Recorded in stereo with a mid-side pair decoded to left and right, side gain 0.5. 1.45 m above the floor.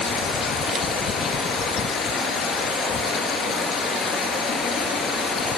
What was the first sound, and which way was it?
Running water, 65° left.